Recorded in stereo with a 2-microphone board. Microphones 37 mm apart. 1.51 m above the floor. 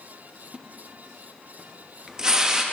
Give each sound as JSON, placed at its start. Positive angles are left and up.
{"t": 0.5, "sound": "a splash", "side_deg": -15, "distance_m": 0.7}